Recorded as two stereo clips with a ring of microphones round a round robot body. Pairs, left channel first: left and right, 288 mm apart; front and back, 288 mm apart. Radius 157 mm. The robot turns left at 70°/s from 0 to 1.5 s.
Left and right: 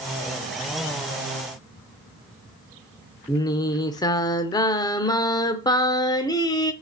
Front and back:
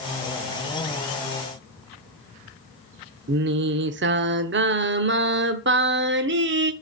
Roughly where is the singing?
Behind.